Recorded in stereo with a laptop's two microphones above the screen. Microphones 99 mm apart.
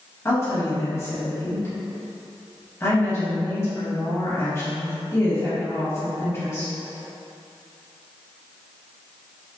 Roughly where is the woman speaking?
Left.